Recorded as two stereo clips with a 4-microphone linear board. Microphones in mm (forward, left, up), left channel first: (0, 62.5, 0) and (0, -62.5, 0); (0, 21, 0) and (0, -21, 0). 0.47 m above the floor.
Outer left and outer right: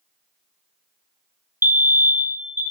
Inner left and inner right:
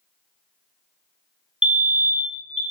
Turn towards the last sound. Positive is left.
turn(degrees=-20)  # may be behind; listen again after turning